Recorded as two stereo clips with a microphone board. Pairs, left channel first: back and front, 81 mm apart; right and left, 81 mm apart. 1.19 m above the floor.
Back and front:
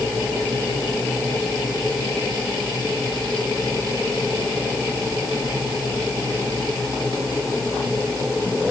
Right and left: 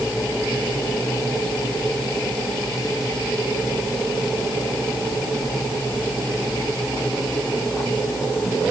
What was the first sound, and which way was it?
Only background noise.